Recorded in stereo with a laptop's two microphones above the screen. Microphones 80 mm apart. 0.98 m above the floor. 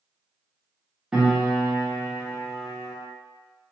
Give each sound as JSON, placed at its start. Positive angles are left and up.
{"t": 1.1, "sound": "a piano", "side_deg": -10, "distance_m": 0.6}